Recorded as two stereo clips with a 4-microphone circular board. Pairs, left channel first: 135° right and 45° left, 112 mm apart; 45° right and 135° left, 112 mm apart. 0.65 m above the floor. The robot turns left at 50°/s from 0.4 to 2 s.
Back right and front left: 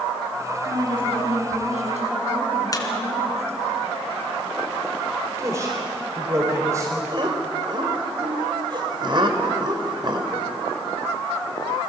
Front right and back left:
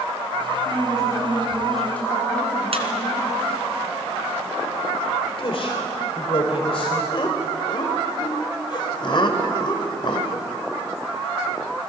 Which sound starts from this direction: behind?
A squeak, at 2.7 s.